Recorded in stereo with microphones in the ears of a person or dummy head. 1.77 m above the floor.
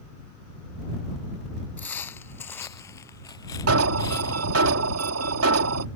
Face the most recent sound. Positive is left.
turn(degrees=-90)